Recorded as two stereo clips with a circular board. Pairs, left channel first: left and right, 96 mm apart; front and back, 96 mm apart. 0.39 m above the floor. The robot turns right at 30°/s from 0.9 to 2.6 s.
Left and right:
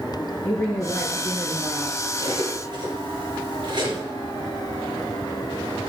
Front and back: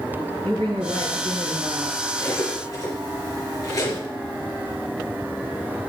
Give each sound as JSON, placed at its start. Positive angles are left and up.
{"t": 0.4, "sound": "a woman speaking", "azimuth_deg": 155, "distance_m": 5.5}
{"t": 2.2, "sound": "cutlery clinking", "azimuth_deg": -65, "distance_m": 4.0}